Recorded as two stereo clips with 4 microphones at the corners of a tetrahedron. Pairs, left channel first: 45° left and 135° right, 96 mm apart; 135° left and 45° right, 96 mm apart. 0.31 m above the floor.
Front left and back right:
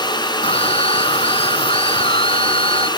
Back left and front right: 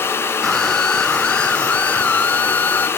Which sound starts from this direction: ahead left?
A scream, at 0.4 s.